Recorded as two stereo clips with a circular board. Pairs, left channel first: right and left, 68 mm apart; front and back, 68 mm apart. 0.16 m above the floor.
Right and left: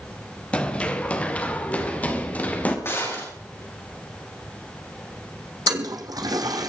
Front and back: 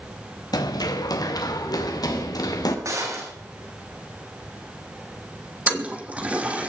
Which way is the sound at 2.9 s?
140° right.